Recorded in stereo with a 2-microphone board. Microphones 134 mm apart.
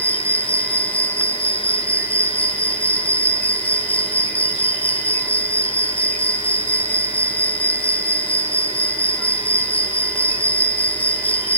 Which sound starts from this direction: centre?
An insect, at 0.0 s.